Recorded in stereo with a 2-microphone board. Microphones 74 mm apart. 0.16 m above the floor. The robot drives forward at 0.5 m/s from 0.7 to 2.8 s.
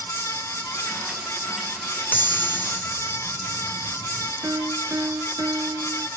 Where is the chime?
25° left (ahead or behind).